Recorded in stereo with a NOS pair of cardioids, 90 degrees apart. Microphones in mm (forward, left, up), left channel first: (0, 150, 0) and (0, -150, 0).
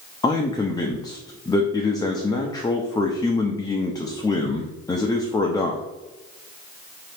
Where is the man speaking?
15° left, 0.5 m.